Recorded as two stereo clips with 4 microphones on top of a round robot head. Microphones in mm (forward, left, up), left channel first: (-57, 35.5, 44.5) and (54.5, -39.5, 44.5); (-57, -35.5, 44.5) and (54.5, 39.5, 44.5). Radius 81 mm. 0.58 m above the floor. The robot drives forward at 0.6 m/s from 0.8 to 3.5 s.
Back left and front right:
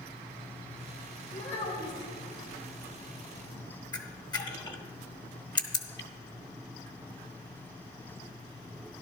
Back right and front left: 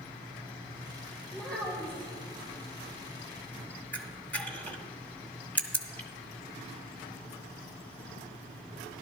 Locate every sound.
1.3 s a child speaking: 130° left, 3.5 m; by 2.1 s 135° left, 3.5 m
3.9 s a camera shutter: 145° left, 1.4 m